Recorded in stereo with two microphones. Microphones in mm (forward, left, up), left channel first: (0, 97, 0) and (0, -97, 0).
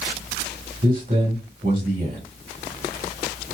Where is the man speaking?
50° right (ahead or behind), 1.5 m.